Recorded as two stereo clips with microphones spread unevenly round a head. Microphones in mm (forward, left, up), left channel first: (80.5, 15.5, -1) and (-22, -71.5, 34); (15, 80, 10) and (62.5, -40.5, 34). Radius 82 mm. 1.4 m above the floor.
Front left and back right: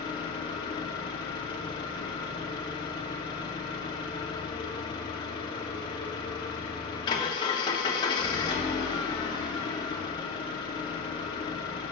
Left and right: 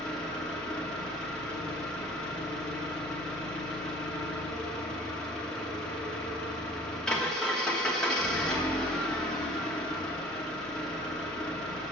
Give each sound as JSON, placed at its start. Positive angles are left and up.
{"t": 0.0, "sound": "an engine running", "azimuth_deg": 5, "distance_m": 0.9}